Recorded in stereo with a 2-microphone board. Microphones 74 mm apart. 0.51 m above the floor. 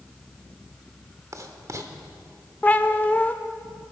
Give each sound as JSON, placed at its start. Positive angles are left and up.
{"t": 1.3, "sound": "writing", "side_deg": -50, "distance_m": 1.1}
{"t": 2.6, "sound": "a cat meowing", "side_deg": 25, "distance_m": 0.6}